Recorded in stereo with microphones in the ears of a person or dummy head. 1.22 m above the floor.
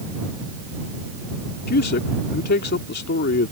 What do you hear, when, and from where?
1.7 s a man speaking: 55° left (ahead or behind)